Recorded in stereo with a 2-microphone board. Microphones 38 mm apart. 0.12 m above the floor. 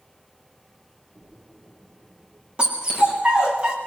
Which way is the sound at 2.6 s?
30° right (ahead or behind).